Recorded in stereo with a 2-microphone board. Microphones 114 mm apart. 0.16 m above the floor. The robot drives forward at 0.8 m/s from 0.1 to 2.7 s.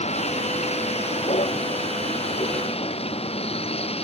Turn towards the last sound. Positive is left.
turn(degrees=60)  # may be behind; listen again after turning